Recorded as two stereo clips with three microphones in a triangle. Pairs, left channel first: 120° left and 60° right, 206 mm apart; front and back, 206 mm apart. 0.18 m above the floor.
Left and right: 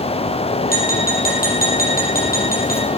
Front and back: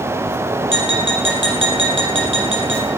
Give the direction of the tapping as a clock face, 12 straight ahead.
7 o'clock.